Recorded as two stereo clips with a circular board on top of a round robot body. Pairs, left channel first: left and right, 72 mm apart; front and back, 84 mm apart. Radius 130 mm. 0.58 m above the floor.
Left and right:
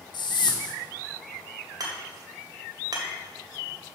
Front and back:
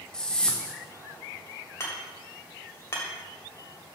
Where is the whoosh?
80° left, 1.0 m.